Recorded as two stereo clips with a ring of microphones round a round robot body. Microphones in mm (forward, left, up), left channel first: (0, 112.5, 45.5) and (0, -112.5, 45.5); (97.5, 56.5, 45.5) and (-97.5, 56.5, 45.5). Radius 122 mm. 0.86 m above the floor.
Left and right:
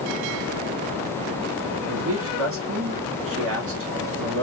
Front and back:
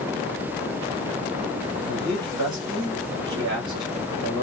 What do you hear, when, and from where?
1.9 s a man speaking: 110° right, 2.0 m